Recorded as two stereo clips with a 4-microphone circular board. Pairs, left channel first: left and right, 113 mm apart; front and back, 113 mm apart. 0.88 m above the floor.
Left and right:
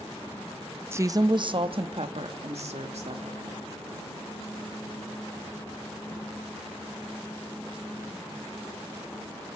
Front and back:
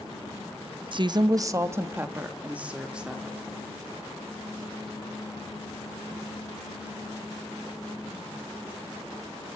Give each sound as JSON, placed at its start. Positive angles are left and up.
{"t": 0.9, "sound": "a woman speaking", "azimuth_deg": -155, "distance_m": 0.8}